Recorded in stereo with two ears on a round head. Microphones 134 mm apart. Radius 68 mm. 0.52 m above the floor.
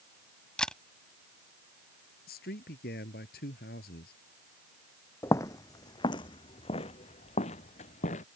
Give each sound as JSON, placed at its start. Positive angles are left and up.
{"t": 0.6, "sound": "a camera shutter", "side_deg": 5}
{"t": 2.3, "sound": "a man speaking", "side_deg": 75}
{"t": 5.2, "sound": "footsteps", "side_deg": 20}